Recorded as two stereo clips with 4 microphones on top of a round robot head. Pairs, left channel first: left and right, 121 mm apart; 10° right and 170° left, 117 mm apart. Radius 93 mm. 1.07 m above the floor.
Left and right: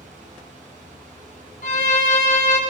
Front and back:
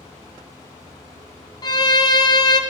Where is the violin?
45° left, 0.8 m.